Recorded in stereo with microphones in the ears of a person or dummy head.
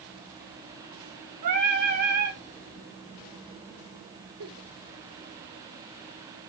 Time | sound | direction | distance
1.4 | singing | 45° right (ahead or behind) | 3.5 m
4.4 | a giggle | 70° right (ahead or behind) | 6.5 m